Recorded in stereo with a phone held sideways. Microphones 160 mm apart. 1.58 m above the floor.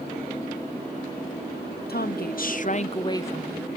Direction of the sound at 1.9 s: 75° left (ahead or behind).